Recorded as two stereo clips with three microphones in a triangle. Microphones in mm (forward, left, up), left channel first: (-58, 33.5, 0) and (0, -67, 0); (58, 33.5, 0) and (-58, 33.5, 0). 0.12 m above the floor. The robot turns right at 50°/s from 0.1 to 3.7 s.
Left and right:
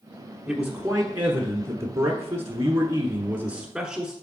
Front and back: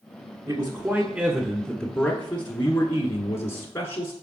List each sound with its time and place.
0.5 s a man speaking: 150° right, 1.2 m; by 4.1 s 15° left, 1.2 m